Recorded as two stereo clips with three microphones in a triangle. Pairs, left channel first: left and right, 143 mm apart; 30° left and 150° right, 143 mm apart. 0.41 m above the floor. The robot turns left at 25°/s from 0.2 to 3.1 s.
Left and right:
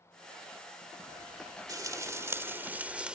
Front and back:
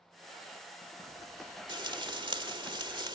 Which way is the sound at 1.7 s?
130° right.